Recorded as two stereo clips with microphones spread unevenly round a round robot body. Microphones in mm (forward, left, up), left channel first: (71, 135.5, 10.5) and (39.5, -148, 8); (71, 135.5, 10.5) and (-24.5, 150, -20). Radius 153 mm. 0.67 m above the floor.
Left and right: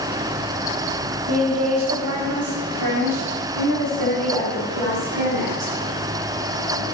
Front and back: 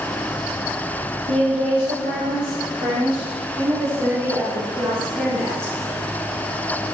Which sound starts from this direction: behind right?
A woman speaking, at 1.3 s.